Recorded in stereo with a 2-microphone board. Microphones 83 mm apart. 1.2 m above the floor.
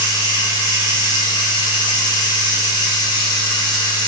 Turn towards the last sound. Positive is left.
turn(degrees=60)  # may be behind; listen again after turning